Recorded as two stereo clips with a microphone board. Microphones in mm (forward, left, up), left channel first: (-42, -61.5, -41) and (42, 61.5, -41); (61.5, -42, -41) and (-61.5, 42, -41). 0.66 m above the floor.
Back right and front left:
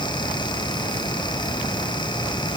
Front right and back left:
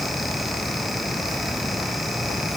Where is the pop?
No pop in this recording.